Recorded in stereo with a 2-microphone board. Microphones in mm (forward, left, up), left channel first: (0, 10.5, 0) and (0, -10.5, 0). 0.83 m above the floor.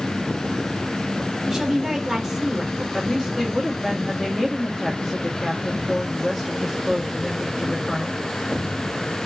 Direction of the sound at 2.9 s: 10° right (ahead or behind).